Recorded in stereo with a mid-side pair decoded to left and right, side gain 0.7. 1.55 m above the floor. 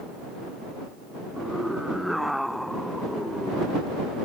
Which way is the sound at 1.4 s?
Straight ahead.